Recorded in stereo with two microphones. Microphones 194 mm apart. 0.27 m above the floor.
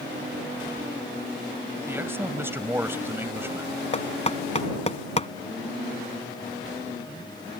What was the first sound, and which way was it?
A man speaking, 10° right (ahead or behind).